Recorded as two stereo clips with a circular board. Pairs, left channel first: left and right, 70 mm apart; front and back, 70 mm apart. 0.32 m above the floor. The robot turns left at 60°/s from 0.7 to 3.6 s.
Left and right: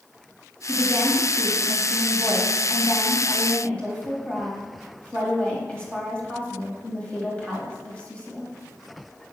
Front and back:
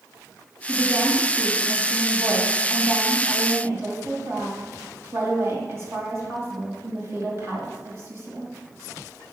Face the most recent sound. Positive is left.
turn(degrees=155)